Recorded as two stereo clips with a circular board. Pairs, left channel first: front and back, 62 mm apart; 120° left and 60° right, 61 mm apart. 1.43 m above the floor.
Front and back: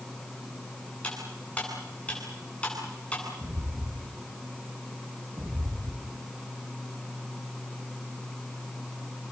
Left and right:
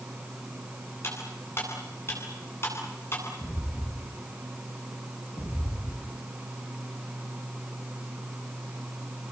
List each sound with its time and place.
1.0 s cutlery clinking: 70° left, 10 m
3.4 s footsteps: 160° left, 3.5 m; by 6.2 s 120° left, 4 m